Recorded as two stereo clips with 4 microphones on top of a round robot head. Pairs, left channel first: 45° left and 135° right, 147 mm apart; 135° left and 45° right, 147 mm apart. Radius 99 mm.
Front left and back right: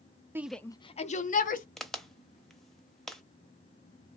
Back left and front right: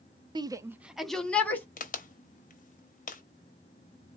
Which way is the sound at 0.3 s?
75° right.